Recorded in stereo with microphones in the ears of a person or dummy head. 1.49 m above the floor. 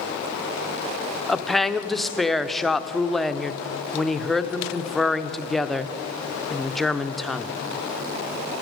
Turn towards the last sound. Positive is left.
turn(degrees=-5)  # may be behind; listen again after turning